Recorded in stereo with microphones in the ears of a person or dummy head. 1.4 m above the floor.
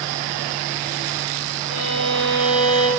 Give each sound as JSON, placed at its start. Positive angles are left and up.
{"t": 1.7, "sound": "a violin", "side_deg": 65, "distance_m": 5.0}